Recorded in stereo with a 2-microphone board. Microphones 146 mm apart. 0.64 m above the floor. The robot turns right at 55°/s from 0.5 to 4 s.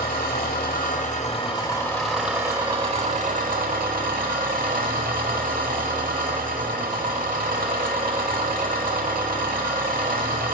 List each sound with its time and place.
0.0 s an engine running: 90° left, 0.8 m; by 10.5 s 75° right, 0.8 m